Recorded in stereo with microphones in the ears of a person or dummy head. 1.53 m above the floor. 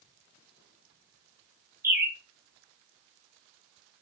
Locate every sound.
1.8 s a bird: 10° right (ahead or behind), 0.5 m